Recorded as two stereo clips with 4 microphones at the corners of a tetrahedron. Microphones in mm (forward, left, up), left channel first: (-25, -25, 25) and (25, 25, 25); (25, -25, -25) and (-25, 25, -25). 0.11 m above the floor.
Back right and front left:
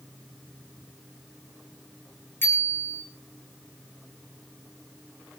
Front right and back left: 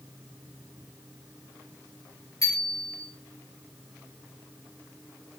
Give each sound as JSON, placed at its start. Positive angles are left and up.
{"t": 2.4, "sound": "a bicycle bell", "azimuth_deg": -75, "distance_m": 6.5}